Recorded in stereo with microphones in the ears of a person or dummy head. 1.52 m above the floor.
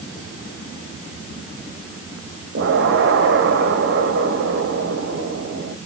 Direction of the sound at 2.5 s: 50° right (ahead or behind).